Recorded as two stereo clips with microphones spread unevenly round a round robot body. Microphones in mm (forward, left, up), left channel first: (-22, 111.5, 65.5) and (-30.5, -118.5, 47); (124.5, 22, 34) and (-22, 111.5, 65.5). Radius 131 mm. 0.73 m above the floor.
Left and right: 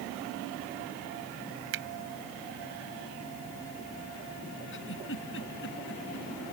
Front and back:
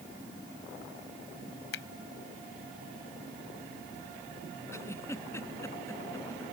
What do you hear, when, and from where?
1.7 s a finger snap: 50° right
4.7 s a giggle: 45° left